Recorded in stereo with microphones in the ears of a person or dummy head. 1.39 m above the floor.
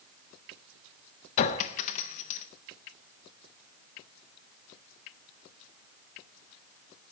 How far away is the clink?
About 0.8 m.